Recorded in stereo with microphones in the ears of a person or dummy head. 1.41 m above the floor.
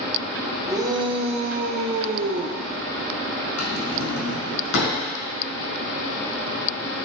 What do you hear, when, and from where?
0.7 s a shout: 15° right (ahead or behind), 1.1 m; by 2.6 s 55° right (ahead or behind), 0.8 m
3.6 s a drawer: 75° left (ahead or behind), 4.5 m